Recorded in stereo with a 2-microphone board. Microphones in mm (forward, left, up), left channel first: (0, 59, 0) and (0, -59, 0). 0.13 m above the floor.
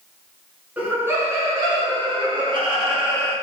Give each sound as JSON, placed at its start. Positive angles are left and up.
{"t": 0.8, "sound": "laughter", "side_deg": -15, "distance_m": 1.0}